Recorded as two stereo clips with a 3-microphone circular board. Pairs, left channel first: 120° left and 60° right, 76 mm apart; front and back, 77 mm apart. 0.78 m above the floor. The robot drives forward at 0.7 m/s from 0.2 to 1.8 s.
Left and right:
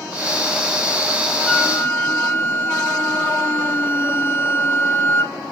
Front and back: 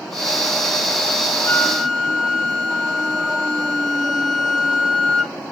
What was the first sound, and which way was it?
A flute, 55° left.